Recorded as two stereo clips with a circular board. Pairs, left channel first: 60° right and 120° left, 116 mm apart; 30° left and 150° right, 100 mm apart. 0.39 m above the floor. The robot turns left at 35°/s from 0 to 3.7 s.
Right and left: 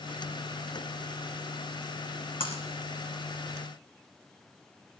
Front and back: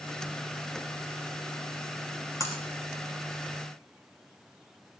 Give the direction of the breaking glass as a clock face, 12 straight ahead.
1 o'clock.